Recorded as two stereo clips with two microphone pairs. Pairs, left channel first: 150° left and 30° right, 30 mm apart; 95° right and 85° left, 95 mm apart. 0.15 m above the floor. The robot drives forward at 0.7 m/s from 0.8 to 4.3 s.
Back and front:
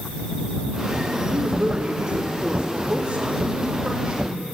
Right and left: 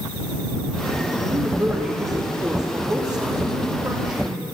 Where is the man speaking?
25° left, 6.5 m; by 4.4 s 35° left, 4.5 m.